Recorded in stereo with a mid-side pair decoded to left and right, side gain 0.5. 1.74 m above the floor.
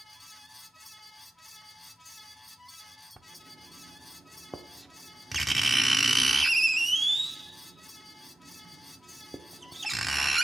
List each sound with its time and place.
0.0 s a fan: 5° left, 1.1 m
3.2 s writing: 10° right, 1.0 m